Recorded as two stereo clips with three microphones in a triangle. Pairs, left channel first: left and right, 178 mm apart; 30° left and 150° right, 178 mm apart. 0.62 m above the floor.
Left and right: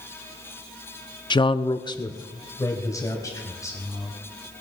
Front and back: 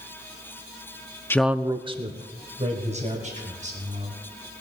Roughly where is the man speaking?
Left.